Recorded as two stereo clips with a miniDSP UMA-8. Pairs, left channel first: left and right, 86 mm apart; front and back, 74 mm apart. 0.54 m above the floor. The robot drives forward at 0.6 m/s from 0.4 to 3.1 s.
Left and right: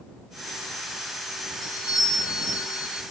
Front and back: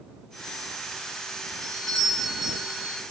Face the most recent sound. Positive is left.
turn(degrees=100)